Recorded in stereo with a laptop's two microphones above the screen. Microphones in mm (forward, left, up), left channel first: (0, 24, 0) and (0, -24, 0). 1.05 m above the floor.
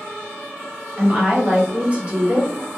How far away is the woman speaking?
About 0.8 m.